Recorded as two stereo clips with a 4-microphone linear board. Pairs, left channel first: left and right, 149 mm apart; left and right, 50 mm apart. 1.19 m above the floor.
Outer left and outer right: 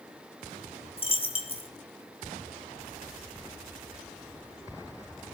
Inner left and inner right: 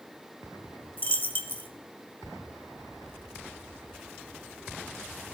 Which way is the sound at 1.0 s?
40° left (ahead or behind).